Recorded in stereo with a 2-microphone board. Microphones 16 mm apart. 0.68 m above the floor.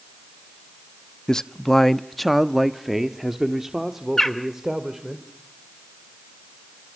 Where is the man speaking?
40° left (ahead or behind), 0.6 m; by 5.2 s 30° right (ahead or behind), 2 m.